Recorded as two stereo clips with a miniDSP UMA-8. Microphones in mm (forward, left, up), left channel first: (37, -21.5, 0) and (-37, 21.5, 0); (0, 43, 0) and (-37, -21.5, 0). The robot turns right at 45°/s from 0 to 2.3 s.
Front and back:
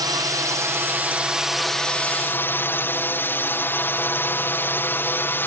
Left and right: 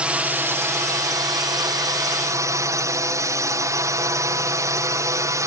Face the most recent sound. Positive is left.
turn(degrees=-90)